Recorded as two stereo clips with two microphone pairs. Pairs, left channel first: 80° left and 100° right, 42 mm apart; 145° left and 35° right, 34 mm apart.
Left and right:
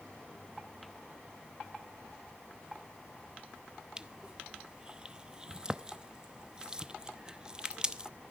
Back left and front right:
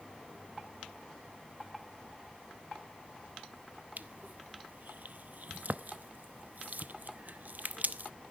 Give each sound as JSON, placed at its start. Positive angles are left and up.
{"t": 4.0, "sound": "crushing", "azimuth_deg": -35, "distance_m": 0.6}